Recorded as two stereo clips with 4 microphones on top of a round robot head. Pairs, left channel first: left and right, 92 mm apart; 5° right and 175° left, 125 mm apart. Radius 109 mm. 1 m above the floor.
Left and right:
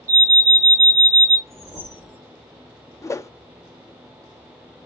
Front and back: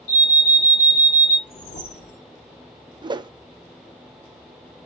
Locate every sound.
0.1 s an alarm: 20° right, 3 m
1.5 s a whoosh: 25° left, 1.7 m
3.0 s a whoosh: 140° left, 0.5 m